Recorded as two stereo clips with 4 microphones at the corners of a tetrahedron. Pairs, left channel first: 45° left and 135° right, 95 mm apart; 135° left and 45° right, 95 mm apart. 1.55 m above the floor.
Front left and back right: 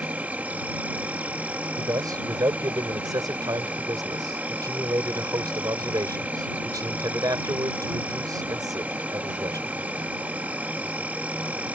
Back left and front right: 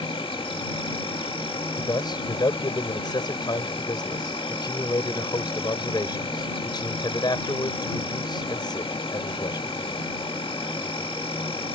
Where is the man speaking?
175° left.